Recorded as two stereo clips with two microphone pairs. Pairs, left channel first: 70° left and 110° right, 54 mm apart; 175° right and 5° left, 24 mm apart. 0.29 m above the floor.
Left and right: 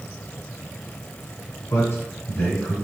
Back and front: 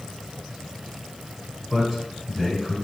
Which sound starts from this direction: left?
A man speaking, at 1.7 s.